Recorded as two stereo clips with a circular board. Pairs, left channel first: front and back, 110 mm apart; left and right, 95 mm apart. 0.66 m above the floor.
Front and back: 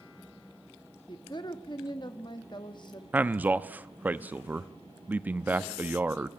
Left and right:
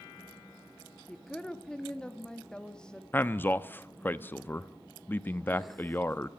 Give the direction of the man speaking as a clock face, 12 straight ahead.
8 o'clock.